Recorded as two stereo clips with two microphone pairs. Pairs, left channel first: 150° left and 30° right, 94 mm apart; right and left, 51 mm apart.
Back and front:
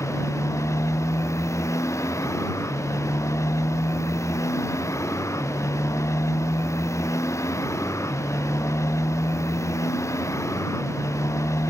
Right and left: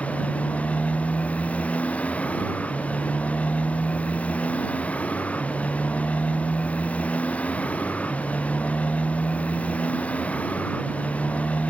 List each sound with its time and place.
0.0 s a motorcycle: 150° right